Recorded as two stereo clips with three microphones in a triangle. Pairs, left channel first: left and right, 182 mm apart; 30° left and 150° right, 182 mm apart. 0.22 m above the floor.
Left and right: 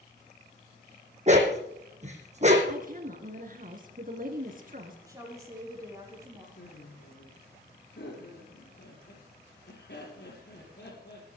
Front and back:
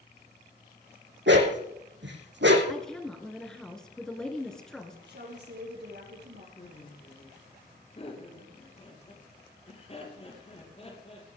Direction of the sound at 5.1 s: 160° right.